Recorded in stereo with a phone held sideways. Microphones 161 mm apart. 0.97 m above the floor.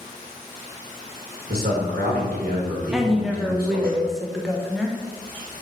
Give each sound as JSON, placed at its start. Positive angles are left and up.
{"t": 1.5, "sound": "a man speaking", "side_deg": -70, "distance_m": 1.3}
{"t": 2.9, "sound": "a woman speaking", "side_deg": -5, "distance_m": 0.6}